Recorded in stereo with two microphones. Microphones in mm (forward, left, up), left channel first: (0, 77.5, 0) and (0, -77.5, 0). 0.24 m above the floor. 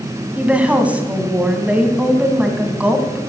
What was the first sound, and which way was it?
A woman speaking, 10° right (ahead or behind).